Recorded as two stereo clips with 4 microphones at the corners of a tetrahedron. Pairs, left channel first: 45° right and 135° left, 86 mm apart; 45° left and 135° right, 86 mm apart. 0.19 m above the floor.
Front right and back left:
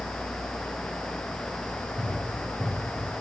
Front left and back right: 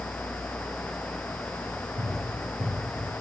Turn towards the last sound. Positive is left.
turn(degrees=-140)